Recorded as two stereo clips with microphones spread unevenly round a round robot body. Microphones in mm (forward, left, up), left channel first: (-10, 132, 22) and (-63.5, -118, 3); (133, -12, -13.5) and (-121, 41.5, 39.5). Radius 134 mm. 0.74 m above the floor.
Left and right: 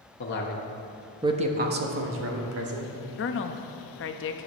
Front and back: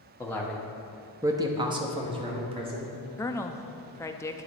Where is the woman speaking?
50° left, 0.7 m.